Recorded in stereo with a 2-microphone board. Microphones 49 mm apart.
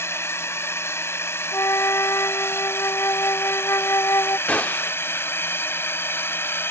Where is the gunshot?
30° left (ahead or behind).